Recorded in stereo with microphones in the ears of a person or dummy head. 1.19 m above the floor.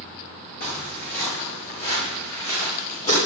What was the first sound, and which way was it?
Footsteps, 55° left (ahead or behind).